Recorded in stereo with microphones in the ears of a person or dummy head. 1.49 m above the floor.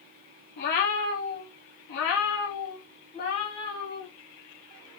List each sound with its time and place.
0.6 s a cat meowing: 50° left (ahead or behind), 1.2 m; by 4.1 s 20° left (ahead or behind), 1.8 m